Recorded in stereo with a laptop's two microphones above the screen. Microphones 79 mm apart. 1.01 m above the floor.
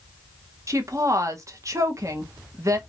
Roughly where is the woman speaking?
Right.